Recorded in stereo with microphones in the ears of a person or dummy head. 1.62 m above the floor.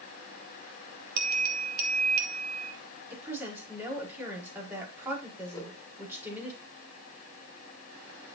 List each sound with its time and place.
1.2 s a bell: 55° right (ahead or behind), 2.5 m
3.1 s a woman speaking: 10° right (ahead or behind), 5.5 m
5.5 s a whoosh: 20° left (ahead or behind), 5 m